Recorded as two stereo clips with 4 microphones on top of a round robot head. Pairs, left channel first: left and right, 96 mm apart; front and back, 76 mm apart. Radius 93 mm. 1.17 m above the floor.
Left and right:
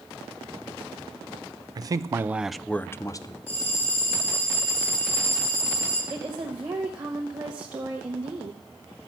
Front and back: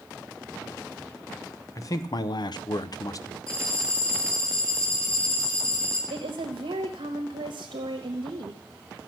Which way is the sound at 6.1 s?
155° right.